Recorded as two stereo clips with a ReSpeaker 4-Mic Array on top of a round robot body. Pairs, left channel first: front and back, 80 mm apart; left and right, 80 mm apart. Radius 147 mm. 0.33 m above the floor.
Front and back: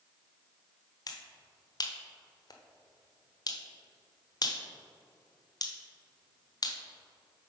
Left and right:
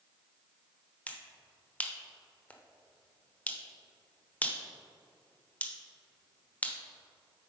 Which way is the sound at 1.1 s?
20° left.